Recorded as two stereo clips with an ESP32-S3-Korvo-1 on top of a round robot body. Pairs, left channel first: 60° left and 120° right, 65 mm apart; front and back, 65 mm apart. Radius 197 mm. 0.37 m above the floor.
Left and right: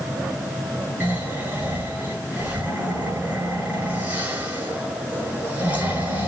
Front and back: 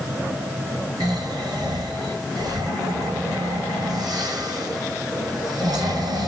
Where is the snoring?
175° left, 9 m.